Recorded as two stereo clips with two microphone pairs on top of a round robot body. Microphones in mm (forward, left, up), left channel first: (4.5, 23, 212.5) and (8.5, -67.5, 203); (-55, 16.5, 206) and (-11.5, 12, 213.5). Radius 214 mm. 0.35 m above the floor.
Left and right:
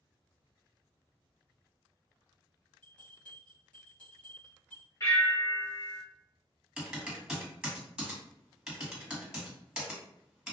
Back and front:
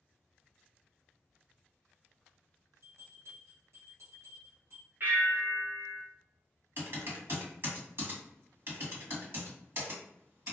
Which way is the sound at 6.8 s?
15° right.